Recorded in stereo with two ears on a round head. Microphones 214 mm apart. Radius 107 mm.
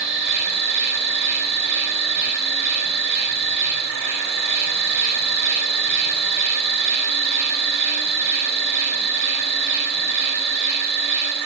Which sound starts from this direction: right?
An insect, at 0.0 s.